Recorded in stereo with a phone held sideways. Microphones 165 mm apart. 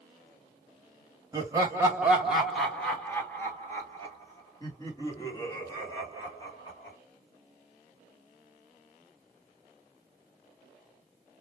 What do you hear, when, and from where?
1.3 s laughter: 20° right (ahead or behind), 0.9 m; by 7.0 s 25° left (ahead or behind), 3 m